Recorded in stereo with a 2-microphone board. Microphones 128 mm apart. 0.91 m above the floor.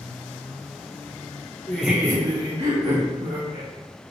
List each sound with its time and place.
1.7 s laughter: 15° left (ahead or behind), 0.7 m; by 3.7 s 70° right (ahead or behind), 2.0 m